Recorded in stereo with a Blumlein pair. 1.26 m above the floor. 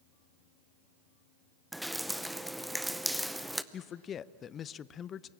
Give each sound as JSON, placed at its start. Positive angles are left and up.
{"t": 1.7, "sound": "dripping", "azimuth_deg": 0, "distance_m": 0.7}
{"t": 3.7, "sound": "a man speaking", "azimuth_deg": 25, "distance_m": 0.5}